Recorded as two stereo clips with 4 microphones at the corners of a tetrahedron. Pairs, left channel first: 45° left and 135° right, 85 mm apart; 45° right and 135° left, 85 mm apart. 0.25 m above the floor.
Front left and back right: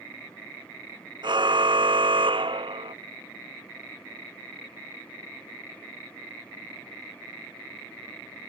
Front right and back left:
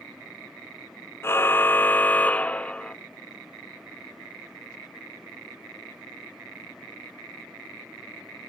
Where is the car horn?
105° right; by 3.0 s 125° right.